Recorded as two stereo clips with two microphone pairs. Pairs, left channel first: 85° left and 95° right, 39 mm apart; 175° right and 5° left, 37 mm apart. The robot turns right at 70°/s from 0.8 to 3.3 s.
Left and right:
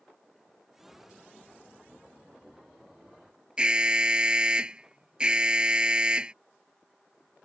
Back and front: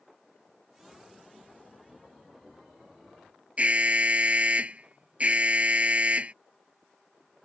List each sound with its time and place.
3.6 s an alarm: 35° right